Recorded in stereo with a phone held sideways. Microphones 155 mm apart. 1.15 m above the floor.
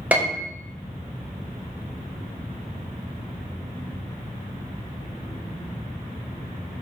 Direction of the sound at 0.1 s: 10° right (ahead or behind).